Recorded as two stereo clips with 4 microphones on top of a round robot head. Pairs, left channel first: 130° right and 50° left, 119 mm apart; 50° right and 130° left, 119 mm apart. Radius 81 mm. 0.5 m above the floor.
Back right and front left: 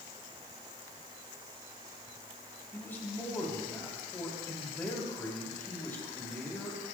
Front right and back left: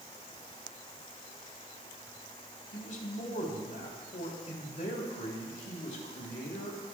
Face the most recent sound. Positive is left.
turn(degrees=-60)